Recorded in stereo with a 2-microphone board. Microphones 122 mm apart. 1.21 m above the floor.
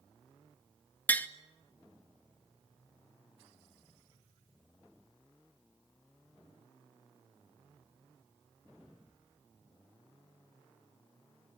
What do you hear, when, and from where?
1.1 s tapping: 15° left (ahead or behind), 1.0 m